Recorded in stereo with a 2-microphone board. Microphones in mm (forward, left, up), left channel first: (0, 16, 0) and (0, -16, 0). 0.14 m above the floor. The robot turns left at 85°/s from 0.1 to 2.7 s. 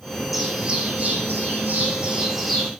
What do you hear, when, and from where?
0.3 s a bird: straight ahead, 2.5 m; by 2.7 s 155° left, 2.5 m